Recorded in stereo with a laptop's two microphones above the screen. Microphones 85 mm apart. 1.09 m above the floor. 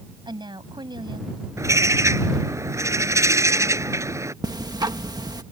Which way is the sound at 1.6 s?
35° right (ahead or behind).